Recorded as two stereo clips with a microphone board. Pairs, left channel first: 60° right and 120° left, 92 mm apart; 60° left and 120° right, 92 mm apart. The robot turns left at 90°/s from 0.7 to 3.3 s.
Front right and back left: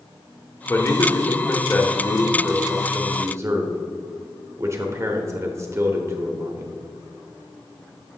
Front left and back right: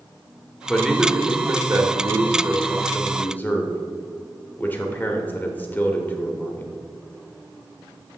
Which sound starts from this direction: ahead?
A man speaking, at 0.7 s.